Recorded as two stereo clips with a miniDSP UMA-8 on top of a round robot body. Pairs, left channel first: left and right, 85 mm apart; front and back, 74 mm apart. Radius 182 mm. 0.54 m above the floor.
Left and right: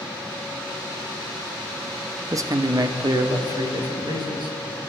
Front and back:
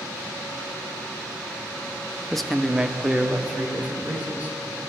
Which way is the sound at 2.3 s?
80° right.